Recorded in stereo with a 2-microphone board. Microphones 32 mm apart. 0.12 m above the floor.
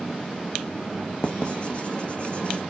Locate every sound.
1.2 s writing: 40° left (ahead or behind), 0.8 m